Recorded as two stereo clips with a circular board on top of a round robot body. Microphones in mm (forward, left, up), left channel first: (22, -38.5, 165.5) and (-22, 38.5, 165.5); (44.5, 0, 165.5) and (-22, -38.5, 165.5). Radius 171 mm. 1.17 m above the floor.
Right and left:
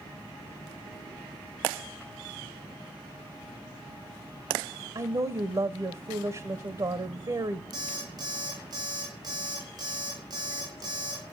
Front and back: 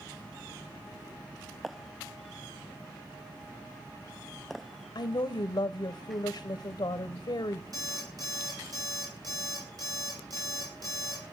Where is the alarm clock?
165° left, 4 m.